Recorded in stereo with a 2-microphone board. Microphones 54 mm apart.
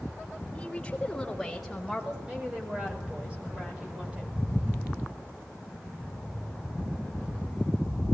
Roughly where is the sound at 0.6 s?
Centre.